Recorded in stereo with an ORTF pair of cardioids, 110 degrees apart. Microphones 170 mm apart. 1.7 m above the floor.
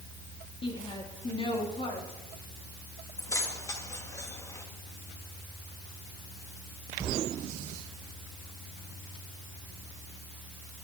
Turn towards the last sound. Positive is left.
turn(degrees=20)